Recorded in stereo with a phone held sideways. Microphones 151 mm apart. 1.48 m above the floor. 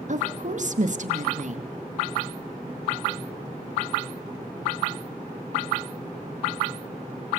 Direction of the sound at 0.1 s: 50° right (ahead or behind).